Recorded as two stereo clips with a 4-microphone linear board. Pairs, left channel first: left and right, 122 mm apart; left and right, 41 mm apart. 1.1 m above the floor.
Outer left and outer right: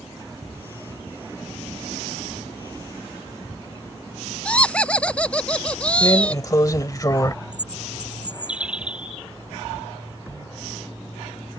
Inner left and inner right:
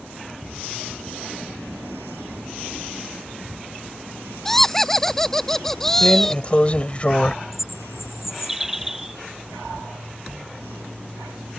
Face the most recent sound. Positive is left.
turn(degrees=-10)  # may be behind; listen again after turning